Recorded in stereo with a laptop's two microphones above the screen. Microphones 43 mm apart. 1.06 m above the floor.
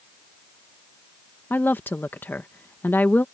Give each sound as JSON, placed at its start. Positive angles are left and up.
{"t": 1.5, "sound": "a woman speaking", "side_deg": 45}